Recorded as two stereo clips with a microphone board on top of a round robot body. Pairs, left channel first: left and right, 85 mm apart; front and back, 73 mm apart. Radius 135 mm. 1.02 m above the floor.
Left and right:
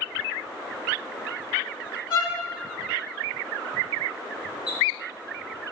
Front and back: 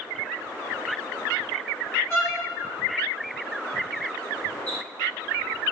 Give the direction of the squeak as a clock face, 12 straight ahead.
10 o'clock.